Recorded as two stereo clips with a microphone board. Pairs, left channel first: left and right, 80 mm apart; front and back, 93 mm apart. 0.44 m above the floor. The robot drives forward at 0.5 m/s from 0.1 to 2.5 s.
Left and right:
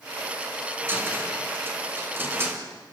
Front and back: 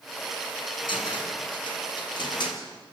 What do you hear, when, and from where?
0.9 s a cupboard door: 25° right, 6 m; by 2.6 s 30° right, 5 m